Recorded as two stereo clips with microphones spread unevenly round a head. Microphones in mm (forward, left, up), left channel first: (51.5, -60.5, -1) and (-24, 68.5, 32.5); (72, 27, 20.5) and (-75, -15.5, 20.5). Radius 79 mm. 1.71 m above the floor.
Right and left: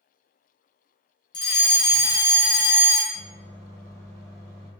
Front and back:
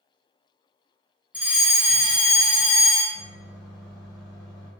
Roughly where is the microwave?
Behind left.